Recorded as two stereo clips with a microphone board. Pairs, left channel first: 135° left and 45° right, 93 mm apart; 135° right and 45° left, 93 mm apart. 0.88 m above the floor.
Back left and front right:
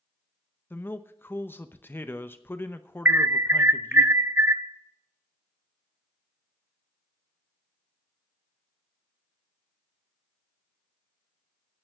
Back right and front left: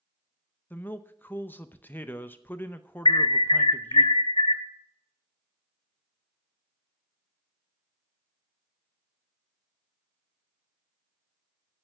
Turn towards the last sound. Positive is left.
turn(degrees=-110)